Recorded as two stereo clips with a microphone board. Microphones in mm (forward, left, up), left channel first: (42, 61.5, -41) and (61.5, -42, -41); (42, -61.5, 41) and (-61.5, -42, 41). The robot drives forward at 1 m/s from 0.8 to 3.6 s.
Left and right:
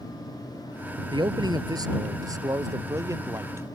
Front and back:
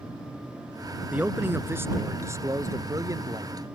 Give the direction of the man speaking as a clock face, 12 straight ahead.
4 o'clock.